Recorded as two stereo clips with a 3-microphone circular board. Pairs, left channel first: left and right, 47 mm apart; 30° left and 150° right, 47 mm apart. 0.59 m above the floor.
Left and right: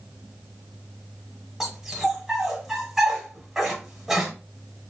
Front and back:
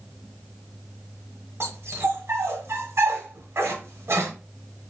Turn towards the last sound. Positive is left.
turn(degrees=-170)